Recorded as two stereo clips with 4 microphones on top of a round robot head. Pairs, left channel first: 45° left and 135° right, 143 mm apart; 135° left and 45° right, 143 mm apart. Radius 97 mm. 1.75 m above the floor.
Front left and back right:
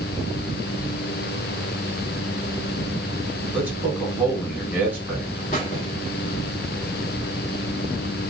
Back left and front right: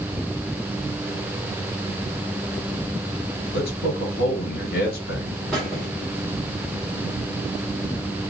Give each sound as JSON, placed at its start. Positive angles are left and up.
{"t": 3.5, "sound": "a man speaking", "azimuth_deg": 150, "distance_m": 2.5}
{"t": 5.5, "sound": "a squeak", "azimuth_deg": 50, "distance_m": 1.6}